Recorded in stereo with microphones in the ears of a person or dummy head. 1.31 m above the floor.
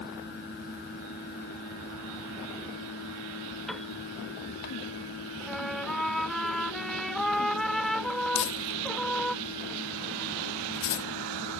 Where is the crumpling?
60° left (ahead or behind).